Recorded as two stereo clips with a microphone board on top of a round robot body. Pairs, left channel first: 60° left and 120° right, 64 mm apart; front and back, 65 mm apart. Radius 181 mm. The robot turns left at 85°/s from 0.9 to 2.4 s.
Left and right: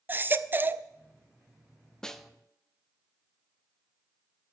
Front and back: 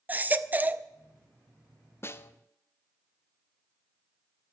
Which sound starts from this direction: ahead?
A snare drum, at 2.0 s.